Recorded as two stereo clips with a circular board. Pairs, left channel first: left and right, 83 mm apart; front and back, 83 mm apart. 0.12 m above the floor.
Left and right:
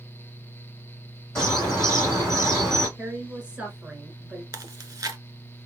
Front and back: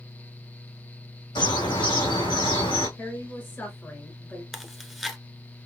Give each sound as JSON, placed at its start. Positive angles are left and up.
{"t": 1.4, "sound": "a bird", "azimuth_deg": 5, "distance_m": 2.5}
{"t": 3.0, "sound": "a woman speaking", "azimuth_deg": -30, "distance_m": 1.3}
{"t": 4.5, "sound": "chewing", "azimuth_deg": -90, "distance_m": 0.7}